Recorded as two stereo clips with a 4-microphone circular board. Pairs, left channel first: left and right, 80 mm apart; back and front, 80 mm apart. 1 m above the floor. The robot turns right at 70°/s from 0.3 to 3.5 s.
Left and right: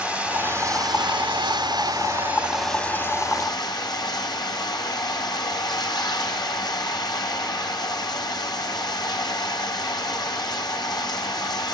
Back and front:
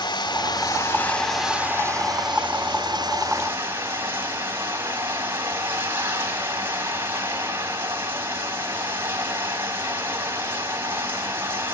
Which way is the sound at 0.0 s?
165° right.